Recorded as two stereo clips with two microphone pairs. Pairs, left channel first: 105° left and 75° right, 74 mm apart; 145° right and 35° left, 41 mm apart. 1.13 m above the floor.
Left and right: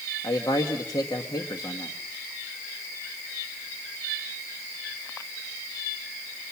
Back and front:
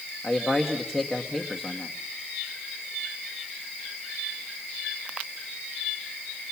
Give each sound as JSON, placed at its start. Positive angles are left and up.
{"t": 0.2, "sound": "a man speaking", "azimuth_deg": 120, "distance_m": 1.4}